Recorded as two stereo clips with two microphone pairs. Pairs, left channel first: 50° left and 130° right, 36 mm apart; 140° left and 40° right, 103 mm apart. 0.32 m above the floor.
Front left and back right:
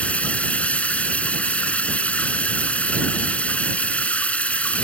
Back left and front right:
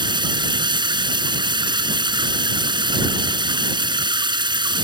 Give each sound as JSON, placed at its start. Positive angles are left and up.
{"t": 0.0, "sound": "running water", "azimuth_deg": 0}